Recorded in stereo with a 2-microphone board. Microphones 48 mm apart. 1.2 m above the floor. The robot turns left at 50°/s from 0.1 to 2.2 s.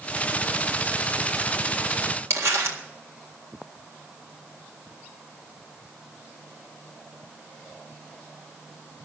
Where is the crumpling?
60° right (ahead or behind), 1.7 m.